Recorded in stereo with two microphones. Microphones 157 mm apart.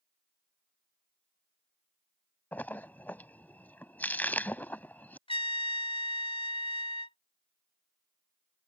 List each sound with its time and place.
2.5 s a splash: 10° left (ahead or behind)
5.3 s a trumpet: 40° left (ahead or behind)